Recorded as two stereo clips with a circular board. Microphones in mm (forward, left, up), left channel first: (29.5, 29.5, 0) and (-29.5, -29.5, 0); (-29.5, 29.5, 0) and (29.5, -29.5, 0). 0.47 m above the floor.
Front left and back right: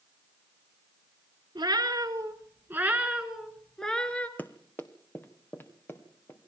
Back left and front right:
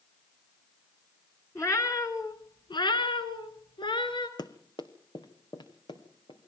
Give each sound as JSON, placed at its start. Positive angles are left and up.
{"t": 1.6, "sound": "a cat meowing", "azimuth_deg": -170, "distance_m": 2.0}
{"t": 4.4, "sound": "running footsteps", "azimuth_deg": 110, "distance_m": 1.2}